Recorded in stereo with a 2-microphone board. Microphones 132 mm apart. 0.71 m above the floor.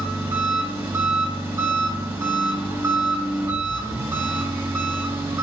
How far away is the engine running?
About 3.5 m.